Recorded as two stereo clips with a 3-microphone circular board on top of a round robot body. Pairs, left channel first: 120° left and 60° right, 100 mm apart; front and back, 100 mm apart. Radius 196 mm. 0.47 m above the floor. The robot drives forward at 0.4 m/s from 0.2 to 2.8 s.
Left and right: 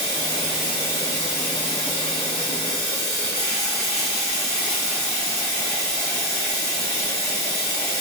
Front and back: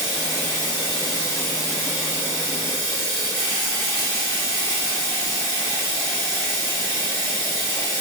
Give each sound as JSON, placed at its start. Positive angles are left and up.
{"t": 0.0, "sound": "running water", "azimuth_deg": -30, "distance_m": 0.8}